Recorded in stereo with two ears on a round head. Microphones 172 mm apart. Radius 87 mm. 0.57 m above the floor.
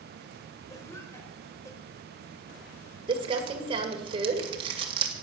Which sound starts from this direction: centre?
A cough, at 0.7 s.